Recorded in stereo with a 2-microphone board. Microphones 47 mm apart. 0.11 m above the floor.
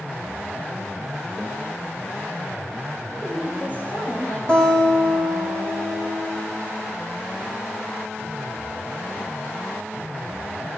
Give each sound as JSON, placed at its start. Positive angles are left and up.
{"t": 1.4, "sound": "a microwave", "side_deg": 5, "distance_m": 1.2}
{"t": 3.1, "sound": "a woman speaking", "side_deg": 45, "distance_m": 4.5}
{"t": 4.5, "sound": "a guitar", "side_deg": 20, "distance_m": 4.5}